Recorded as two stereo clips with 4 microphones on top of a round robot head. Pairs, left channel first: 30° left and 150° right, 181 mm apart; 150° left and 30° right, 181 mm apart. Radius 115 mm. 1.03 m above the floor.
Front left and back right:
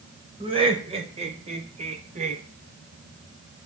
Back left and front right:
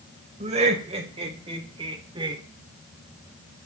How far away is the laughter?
About 5.5 m.